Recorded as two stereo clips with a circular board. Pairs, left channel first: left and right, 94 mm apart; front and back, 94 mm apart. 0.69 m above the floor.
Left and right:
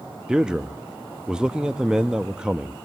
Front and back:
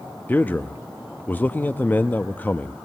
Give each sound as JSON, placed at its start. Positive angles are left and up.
{"t": 0.3, "sound": "a man speaking", "azimuth_deg": -25, "distance_m": 0.5}